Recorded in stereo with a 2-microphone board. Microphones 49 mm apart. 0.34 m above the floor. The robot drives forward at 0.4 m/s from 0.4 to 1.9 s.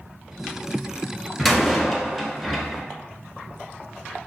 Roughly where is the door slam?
Centre.